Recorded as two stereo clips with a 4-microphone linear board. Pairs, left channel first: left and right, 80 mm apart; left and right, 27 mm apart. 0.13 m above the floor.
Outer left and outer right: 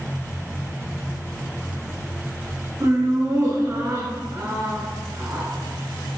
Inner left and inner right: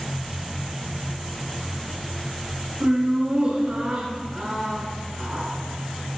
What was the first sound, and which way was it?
Laughter, 30° right (ahead or behind).